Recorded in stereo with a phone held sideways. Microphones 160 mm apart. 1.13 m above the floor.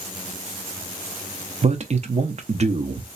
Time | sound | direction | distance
1.6 | a man speaking | 45° right (ahead or behind) | 0.7 m